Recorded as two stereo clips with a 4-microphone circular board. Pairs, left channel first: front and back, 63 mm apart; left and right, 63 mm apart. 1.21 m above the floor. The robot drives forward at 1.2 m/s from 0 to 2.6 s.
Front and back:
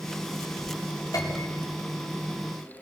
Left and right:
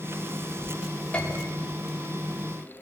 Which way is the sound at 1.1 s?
20° left.